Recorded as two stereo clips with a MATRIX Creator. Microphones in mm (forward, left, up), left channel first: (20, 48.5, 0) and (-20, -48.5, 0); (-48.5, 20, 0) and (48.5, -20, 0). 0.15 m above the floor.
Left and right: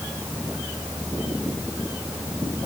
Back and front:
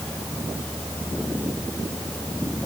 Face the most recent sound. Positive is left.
No sound to turn to.